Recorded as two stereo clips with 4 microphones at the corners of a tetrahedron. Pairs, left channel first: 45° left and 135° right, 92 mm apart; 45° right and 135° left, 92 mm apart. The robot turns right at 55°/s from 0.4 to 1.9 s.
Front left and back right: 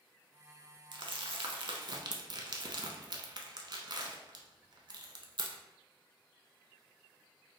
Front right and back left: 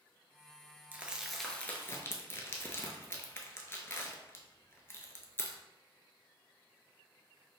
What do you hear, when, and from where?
0.9 s crumpling: 160° right, 0.5 m; by 5.6 s 105° right, 0.5 m